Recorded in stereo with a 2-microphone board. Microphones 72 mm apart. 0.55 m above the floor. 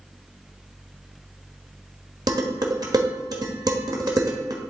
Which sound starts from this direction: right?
Dishes clattering, at 2.3 s.